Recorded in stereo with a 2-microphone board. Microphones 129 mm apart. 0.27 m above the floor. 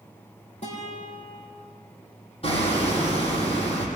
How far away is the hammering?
About 5.5 m.